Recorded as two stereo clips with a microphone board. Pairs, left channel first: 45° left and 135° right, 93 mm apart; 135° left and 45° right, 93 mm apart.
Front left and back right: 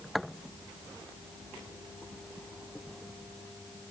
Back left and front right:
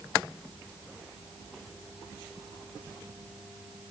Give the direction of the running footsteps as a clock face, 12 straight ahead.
No running footsteps in this recording.